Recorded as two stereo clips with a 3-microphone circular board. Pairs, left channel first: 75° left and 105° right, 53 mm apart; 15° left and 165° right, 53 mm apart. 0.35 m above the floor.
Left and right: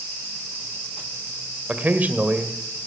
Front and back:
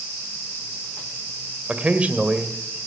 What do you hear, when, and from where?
1.7 s a man speaking: 125° right, 1.7 m